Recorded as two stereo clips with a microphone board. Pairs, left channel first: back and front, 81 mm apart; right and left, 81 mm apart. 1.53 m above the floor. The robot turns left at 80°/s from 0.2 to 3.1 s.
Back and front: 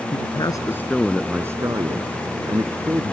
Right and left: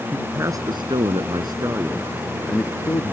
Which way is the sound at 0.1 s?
160° left.